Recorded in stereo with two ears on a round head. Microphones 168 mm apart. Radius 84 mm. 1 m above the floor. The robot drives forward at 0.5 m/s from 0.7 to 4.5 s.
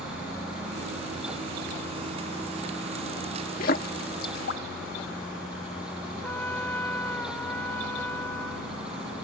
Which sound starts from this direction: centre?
A trumpet, at 6.2 s.